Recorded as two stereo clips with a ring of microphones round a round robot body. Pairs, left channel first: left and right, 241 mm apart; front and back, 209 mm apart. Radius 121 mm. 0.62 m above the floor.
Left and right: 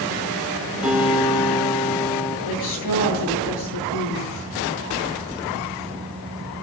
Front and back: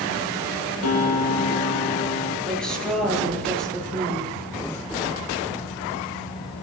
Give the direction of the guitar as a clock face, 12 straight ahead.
12 o'clock.